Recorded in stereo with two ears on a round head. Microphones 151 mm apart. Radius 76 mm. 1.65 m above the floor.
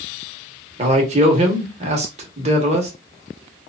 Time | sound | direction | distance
0.8 | a man speaking | 40° right (ahead or behind) | 1.0 m